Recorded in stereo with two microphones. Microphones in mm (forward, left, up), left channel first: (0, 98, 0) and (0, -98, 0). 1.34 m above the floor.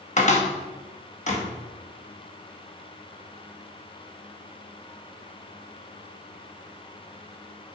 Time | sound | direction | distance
0.2 | a cupboard door | 40° left (ahead or behind) | 1.1 m